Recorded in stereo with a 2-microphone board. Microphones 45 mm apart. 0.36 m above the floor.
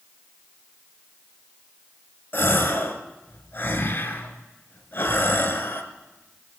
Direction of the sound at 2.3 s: 50° left (ahead or behind).